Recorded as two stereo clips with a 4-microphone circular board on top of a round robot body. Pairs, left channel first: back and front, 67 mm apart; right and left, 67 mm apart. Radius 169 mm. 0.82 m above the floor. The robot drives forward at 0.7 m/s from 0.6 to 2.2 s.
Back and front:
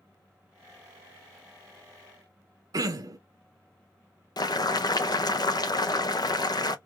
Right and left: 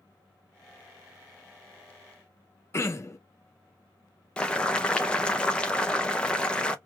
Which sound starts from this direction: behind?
Boiling, at 4.4 s.